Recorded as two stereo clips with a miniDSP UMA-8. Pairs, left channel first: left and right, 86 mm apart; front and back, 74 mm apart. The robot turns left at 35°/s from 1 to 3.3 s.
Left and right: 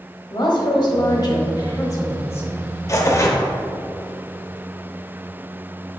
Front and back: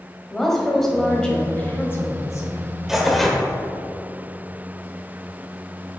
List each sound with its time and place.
0.3 s a woman speaking: 85° left, 1.7 m; by 2.6 s 30° left, 1.7 m
2.9 s tearing paper: 100° left, 1.0 m; by 3.4 s 85° left, 1.0 m